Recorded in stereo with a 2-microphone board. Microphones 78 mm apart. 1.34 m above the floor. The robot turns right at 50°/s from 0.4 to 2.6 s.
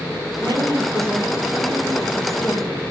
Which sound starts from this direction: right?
A woman speaking, at 0.4 s.